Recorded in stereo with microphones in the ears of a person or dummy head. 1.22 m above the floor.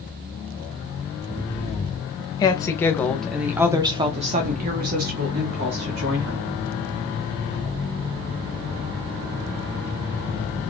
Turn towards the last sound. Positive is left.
turn(degrees=-85)